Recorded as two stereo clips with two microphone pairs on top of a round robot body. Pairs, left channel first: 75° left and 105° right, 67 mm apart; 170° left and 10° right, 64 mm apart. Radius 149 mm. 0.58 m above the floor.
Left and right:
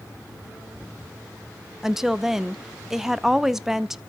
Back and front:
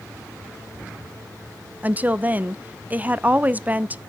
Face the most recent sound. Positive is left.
turn(degrees=-20)